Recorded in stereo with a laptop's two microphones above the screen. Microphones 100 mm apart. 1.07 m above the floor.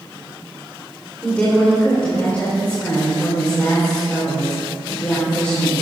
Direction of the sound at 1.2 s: 15° left (ahead or behind).